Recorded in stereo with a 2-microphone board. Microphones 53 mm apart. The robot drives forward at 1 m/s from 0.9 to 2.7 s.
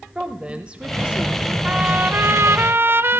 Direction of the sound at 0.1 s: 20° right (ahead or behind).